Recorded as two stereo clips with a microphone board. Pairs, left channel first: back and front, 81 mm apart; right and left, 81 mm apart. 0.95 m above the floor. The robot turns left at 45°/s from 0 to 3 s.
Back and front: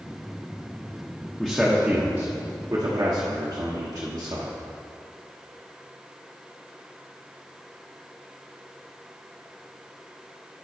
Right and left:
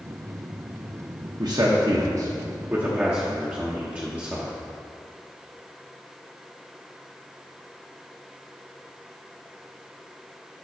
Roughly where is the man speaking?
Left.